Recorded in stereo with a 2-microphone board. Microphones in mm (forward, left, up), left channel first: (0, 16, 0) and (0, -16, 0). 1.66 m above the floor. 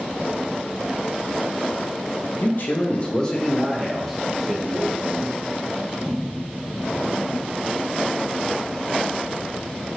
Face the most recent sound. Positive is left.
turn(degrees=-10)  # may be behind; listen again after turning